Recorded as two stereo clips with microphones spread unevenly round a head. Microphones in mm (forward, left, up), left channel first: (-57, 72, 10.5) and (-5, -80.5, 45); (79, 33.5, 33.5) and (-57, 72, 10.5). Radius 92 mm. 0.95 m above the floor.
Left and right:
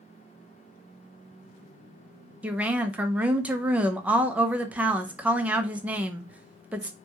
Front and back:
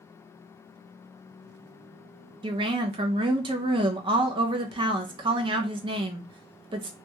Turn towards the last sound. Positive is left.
turn(degrees=-160)